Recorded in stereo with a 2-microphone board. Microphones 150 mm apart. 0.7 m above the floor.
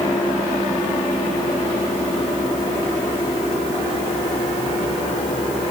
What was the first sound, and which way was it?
Only background noise.